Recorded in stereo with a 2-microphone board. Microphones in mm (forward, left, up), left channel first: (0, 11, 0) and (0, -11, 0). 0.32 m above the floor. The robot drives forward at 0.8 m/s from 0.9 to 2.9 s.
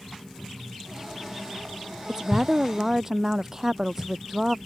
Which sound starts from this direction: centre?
A woman speaking, at 2.1 s.